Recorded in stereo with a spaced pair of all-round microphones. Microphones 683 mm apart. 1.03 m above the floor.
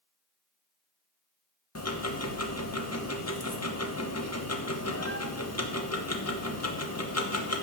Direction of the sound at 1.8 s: 20° left (ahead or behind).